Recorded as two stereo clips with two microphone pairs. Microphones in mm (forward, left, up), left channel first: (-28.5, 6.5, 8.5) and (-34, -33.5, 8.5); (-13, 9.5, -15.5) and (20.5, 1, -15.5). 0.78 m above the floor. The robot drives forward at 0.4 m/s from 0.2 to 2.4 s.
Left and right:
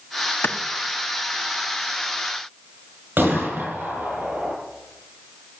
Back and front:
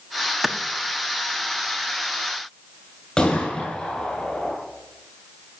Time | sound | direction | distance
0.4 | a clap | 75° left | 1.2 m
3.2 | a gunshot | 130° right | 9 m